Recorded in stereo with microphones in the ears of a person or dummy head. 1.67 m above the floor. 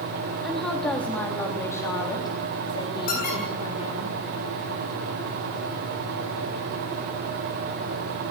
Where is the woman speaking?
Centre (ahead or behind), 3.5 m; by 4.1 s 35° left (ahead or behind), 4.5 m.